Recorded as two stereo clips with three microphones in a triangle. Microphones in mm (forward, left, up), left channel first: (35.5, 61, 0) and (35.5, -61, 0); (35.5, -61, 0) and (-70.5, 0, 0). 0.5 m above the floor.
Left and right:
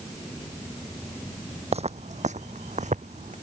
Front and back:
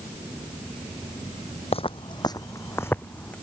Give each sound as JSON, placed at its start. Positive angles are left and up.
{"t": 1.7, "sound": "footsteps", "azimuth_deg": -65}